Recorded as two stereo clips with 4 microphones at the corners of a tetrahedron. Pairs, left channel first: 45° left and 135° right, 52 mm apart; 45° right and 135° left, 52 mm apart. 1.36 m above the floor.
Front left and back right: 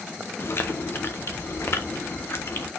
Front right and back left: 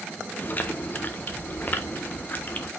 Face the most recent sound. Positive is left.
turn(degrees=10)